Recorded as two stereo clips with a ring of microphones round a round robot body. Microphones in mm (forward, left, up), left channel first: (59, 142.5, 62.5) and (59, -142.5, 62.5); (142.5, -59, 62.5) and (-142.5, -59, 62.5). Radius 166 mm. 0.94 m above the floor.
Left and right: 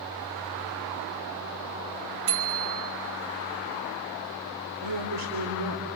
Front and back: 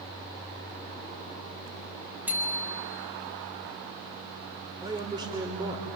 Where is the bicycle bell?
95° right, 4 m.